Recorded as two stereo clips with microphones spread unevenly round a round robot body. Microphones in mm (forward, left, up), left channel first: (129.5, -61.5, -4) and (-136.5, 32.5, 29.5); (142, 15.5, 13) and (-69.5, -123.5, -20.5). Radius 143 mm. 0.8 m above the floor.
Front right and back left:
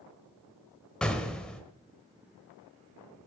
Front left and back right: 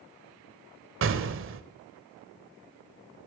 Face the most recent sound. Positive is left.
turn(degrees=-110)